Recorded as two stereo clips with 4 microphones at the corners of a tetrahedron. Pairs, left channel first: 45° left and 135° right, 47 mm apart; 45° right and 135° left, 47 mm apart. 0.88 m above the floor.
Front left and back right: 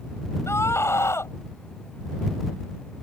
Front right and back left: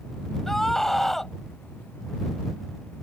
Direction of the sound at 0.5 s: 35° left.